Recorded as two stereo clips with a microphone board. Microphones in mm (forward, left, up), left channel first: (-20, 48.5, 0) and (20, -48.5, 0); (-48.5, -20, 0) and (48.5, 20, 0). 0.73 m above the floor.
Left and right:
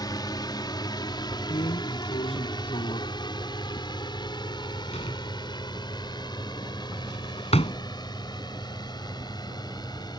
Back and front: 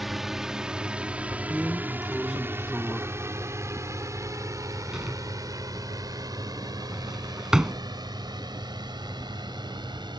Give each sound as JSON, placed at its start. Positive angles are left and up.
{"t": 0.0, "sound": "a drone", "azimuth_deg": 110}
{"t": 1.5, "sound": "a drawer", "azimuth_deg": 105}